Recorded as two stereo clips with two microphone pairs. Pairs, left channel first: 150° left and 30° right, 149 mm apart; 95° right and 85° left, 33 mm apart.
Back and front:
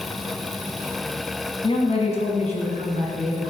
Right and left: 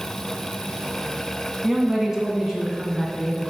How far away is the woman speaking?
About 1.5 m.